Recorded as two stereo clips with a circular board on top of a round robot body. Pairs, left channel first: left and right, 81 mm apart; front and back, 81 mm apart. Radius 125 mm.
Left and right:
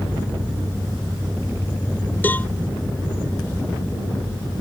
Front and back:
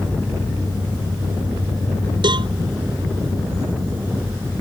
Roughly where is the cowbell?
Behind.